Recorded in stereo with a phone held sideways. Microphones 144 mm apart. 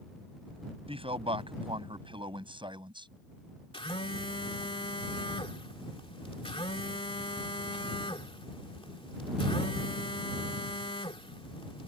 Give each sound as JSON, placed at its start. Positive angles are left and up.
{"t": 0.9, "sound": "a man speaking", "side_deg": -40}
{"t": 3.7, "sound": "a phone buzzing", "side_deg": 40}